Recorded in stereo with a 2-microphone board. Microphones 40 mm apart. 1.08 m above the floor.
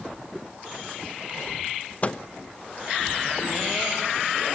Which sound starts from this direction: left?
A microwave, at 2.0 s.